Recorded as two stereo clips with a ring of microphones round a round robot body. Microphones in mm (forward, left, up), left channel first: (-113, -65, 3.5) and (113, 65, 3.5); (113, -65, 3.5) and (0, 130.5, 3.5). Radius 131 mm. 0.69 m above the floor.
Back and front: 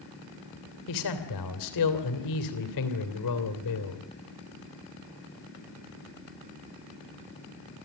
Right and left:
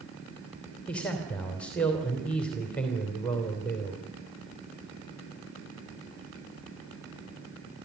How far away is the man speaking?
About 3 m.